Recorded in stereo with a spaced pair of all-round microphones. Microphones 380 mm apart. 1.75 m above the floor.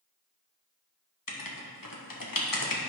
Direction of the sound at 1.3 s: 60° left (ahead or behind).